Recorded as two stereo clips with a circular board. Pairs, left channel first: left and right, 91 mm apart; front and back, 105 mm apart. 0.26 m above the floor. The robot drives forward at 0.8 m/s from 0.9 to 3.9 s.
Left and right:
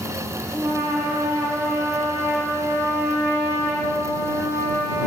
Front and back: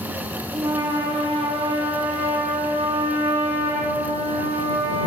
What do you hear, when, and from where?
0.5 s a trumpet: 140° right, 2 m; by 5.1 s 160° right, 4.5 m